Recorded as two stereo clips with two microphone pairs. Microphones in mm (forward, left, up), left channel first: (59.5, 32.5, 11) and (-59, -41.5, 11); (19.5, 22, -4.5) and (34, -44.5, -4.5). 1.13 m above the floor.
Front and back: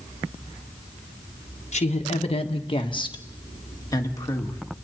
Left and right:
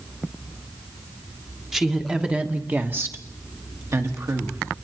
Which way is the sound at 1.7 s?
5° left.